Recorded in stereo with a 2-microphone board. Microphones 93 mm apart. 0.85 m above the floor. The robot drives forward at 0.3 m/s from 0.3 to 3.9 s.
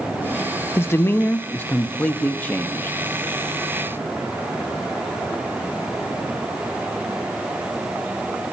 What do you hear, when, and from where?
0.8 s a man speaking: 25° left (ahead or behind), 0.6 m; by 3.0 s 15° left (ahead or behind), 1.0 m